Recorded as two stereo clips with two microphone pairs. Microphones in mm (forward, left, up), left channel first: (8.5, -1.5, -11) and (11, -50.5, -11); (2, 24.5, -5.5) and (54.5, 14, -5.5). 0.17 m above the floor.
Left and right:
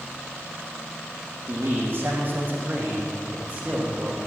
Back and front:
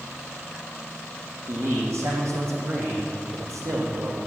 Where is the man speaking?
40° right, 6 m; by 4.2 s 20° right, 5.5 m.